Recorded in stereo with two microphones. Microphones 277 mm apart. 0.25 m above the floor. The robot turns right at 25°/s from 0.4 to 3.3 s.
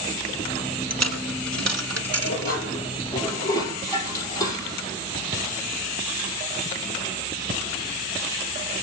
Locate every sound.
0.9 s a dropped coin: 65° right (ahead or behind), 1.3 m; by 2.6 s 55° right (ahead or behind), 1.3 m
2.2 s dishes clattering: 40° left (ahead or behind), 4.5 m; by 4.8 s 10° left (ahead or behind), 4.5 m